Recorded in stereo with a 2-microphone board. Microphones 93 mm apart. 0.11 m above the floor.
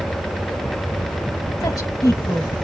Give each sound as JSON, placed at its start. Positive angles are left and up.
{"t": 1.6, "sound": "a woman speaking", "side_deg": 40, "distance_m": 2.0}